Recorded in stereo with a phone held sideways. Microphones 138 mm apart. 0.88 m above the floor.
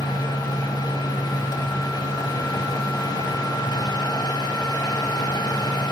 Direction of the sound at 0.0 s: 30° left (ahead or behind).